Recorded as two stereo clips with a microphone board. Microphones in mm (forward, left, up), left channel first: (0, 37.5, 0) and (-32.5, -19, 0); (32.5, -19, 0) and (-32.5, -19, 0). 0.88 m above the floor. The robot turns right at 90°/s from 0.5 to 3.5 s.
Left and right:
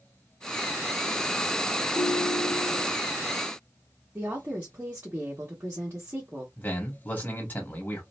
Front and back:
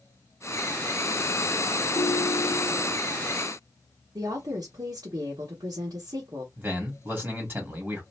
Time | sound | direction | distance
1.9 | a ringtone | 65° right | 1.1 m
4.2 | a woman speaking | straight behind | 1.4 m
6.6 | a man speaking | 125° left | 2 m